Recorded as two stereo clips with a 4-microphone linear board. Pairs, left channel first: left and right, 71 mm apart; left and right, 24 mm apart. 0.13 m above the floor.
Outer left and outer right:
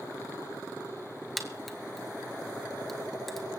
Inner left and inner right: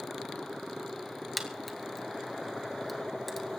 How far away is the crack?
About 1.7 m.